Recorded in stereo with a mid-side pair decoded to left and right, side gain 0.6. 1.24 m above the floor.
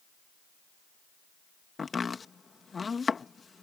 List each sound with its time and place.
1.8 s chopping: 25° left